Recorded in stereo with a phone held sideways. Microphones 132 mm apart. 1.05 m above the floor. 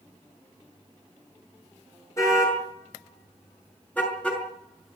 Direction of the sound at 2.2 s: 25° left (ahead or behind).